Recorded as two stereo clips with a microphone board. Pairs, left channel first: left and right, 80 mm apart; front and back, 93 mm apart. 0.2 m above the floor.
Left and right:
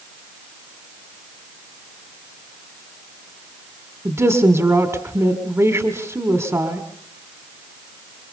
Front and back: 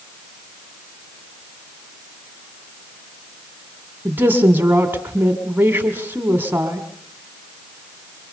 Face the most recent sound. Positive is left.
turn(degrees=-125)